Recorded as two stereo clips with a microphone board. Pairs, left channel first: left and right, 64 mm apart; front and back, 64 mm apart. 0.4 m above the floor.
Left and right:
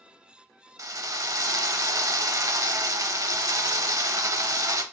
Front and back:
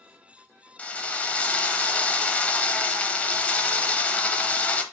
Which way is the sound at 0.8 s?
70° right.